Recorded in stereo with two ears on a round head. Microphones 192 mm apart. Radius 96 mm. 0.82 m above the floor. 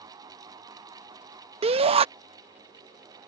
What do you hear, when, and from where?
1.6 s a shout: 30° right (ahead or behind)